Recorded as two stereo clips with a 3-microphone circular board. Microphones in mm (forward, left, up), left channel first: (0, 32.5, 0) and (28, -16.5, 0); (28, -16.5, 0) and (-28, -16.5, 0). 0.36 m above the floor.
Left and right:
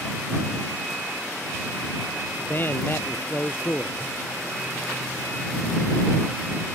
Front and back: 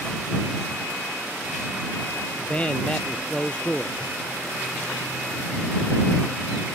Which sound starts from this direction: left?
A man speaking, at 2.4 s.